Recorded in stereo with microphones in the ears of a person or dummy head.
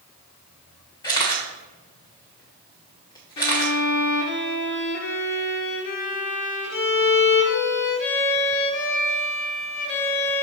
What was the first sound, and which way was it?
A camera shutter, 20° left (ahead or behind).